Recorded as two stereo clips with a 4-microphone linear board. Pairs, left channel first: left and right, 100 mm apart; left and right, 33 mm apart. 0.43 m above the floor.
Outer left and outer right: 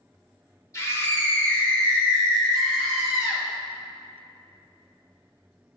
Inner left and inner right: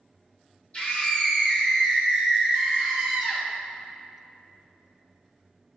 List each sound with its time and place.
0.7 s a scream: 30° left (ahead or behind), 1.3 m; by 3.5 s 5° right (ahead or behind), 2.5 m